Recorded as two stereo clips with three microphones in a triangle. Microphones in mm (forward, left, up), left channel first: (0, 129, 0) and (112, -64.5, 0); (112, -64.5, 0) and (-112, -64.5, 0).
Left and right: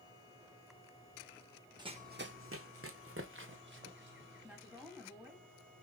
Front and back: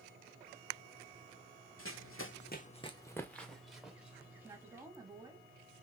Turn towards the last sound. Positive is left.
turn(degrees=-135)